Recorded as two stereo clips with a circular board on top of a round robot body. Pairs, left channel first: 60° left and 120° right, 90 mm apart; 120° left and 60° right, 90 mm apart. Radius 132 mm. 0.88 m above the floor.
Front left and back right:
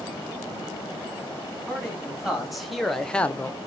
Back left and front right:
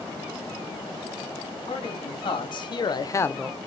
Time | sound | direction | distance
1.7 | a man speaking | 155° left | 2.5 m